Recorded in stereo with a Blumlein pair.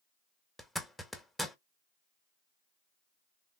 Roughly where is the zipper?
Ahead.